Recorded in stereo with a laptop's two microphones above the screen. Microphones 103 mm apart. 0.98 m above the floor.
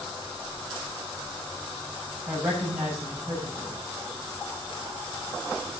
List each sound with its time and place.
2.3 s a woman speaking: 25° right (ahead or behind), 6.5 m